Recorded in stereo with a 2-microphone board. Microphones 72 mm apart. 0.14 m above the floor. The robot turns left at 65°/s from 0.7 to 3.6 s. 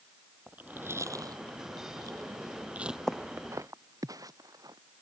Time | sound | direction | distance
0.5 | chewing | 25° right (ahead or behind) | ?
3.1 | footsteps | 10° left (ahead or behind) | ?